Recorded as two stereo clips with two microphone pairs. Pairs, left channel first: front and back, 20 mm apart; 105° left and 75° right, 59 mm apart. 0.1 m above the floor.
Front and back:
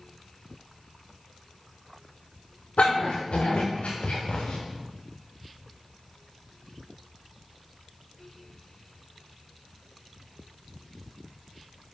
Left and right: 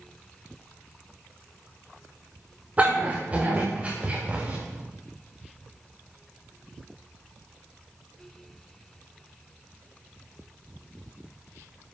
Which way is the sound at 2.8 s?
10° right.